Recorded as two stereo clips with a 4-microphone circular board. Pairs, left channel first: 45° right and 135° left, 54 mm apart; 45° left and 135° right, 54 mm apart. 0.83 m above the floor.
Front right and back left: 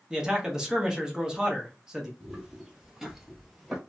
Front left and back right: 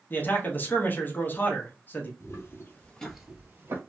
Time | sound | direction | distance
0.1 | a man speaking | 65° left | 0.8 m
2.2 | footsteps | 45° left | 1.3 m